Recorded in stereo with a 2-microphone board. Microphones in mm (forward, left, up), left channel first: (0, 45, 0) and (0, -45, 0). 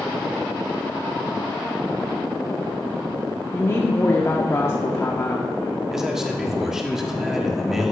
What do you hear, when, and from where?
3.5 s a woman speaking: 30° left (ahead or behind), 0.8 m
5.9 s a man speaking: 5° right (ahead or behind), 1.1 m